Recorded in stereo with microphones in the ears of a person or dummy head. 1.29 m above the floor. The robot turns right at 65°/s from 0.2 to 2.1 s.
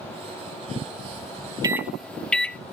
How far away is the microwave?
About 0.5 m.